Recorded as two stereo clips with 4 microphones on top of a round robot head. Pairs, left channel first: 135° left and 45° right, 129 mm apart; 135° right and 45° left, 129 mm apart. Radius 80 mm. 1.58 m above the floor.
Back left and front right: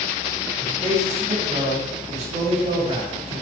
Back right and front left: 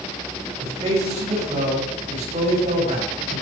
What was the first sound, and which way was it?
A man speaking, straight ahead.